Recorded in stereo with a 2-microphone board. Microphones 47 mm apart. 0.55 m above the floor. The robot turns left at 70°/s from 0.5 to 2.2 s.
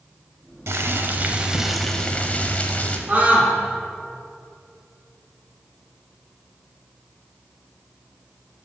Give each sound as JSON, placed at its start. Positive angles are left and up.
{"t": 0.7, "sound": "boiling", "azimuth_deg": -105, "distance_m": 0.7}
{"t": 3.1, "sound": "a scream", "side_deg": -35, "distance_m": 1.1}